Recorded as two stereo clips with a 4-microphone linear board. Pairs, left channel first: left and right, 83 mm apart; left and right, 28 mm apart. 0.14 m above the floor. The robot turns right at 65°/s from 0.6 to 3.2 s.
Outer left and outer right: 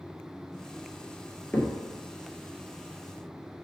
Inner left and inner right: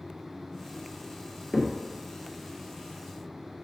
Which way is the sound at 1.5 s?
20° left (ahead or behind).